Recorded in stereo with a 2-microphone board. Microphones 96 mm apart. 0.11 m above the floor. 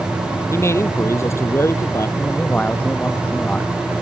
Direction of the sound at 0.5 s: 30° left (ahead or behind).